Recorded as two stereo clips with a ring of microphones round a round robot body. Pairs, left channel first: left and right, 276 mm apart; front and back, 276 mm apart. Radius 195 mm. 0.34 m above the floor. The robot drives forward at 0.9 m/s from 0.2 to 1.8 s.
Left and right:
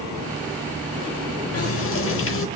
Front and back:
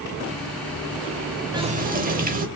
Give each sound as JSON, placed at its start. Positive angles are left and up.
{"t": 1.5, "sound": "a running tap", "azimuth_deg": 105, "distance_m": 0.8}